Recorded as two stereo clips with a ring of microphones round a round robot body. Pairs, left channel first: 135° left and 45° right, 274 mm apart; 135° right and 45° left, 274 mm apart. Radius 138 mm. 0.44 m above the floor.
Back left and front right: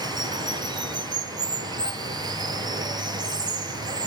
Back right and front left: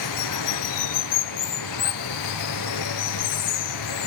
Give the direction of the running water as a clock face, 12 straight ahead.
4 o'clock.